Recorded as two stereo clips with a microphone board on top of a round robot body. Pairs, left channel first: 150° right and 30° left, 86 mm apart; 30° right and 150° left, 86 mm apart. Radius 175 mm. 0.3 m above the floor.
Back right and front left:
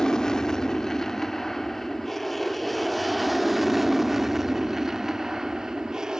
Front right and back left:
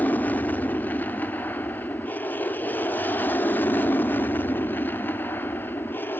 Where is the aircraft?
75° right; by 6.2 s 40° right.